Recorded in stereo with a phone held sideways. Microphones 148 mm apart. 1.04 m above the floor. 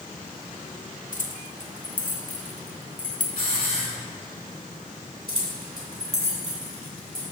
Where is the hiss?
60° left (ahead or behind), 1.9 m.